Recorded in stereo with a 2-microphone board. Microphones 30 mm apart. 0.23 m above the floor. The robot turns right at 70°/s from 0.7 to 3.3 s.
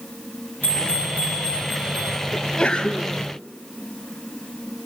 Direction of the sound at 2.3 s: 15° left (ahead or behind).